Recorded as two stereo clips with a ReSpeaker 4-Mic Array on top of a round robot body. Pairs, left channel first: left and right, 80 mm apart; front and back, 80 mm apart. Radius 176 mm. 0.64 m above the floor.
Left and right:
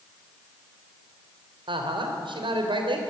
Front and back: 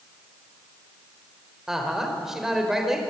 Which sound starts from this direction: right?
A woman speaking, at 1.7 s.